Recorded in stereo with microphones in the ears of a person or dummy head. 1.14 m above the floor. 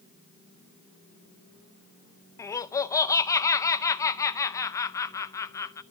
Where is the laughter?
20° left (ahead or behind), 0.7 m.